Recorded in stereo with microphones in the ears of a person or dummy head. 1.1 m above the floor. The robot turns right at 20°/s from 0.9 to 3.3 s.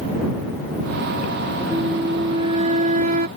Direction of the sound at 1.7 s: 160° right.